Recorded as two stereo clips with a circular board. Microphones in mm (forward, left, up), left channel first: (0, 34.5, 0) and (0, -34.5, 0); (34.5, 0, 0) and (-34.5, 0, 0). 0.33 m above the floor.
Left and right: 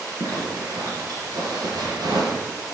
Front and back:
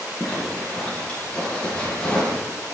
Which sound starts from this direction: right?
A zipper, at 0.2 s.